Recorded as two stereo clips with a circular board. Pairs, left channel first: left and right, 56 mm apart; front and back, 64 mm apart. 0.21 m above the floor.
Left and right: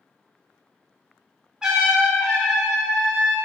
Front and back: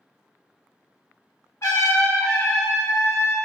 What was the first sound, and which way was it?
A trumpet, 15° right.